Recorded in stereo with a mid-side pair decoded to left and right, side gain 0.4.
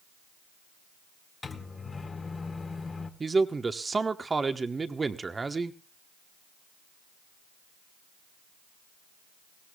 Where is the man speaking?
30° right, 1.1 m.